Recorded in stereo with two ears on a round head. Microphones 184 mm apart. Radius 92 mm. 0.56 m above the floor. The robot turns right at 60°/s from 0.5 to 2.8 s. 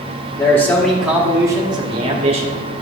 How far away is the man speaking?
About 1.1 m.